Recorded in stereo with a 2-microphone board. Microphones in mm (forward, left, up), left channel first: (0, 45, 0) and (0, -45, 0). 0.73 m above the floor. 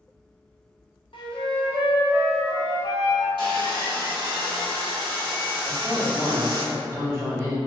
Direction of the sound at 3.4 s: 65° right (ahead or behind).